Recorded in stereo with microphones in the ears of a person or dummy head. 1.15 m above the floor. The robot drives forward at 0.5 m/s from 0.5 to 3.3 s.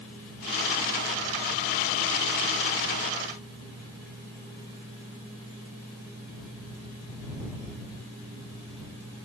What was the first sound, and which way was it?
Only background noise.